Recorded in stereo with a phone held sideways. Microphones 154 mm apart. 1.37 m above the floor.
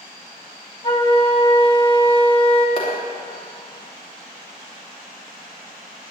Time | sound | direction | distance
0.8 | a flute | 30° left (ahead or behind) | 1.7 m
2.8 | a clap | 35° left (ahead or behind) | 3 m